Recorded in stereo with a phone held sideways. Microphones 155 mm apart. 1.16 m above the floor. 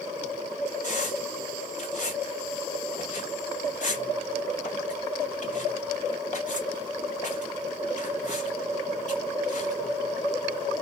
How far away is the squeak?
About 1.3 m.